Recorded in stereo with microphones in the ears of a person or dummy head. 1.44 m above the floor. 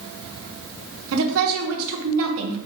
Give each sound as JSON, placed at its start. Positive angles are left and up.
{"t": 1.1, "sound": "a woman speaking", "side_deg": -75, "distance_m": 1.2}